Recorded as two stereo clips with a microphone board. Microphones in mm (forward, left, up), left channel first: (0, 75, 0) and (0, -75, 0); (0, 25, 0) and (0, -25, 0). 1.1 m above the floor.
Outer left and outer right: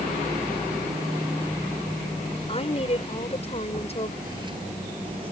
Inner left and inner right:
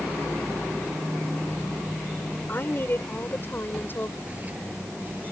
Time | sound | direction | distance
2.5 | a woman speaking | 40° left (ahead or behind) | ?
4.2 | footsteps | 30° right (ahead or behind) | ?